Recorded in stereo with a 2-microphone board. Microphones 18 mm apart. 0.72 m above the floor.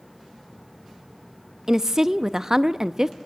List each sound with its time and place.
1.7 s a woman speaking: 30° right (ahead or behind), 0.5 m